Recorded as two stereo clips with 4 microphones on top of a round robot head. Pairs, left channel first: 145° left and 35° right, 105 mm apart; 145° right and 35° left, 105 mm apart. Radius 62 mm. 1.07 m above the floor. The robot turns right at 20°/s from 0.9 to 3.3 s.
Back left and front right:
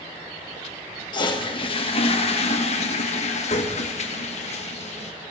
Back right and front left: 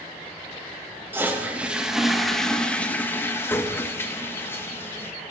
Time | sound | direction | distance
1.1 | a toilet flushing | 100° left | 1.4 m